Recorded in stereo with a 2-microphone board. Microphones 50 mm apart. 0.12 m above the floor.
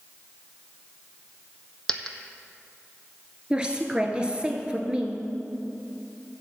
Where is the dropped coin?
15° left (ahead or behind), 0.7 m.